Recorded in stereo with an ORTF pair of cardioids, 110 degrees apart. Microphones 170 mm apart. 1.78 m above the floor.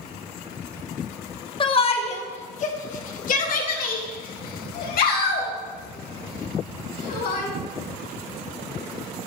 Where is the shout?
30° left, 1.7 m; by 7.5 s 75° left, 4.5 m.